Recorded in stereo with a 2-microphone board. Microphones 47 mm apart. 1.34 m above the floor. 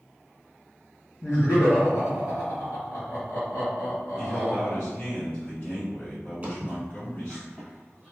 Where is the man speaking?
45° left (ahead or behind), 1.7 m.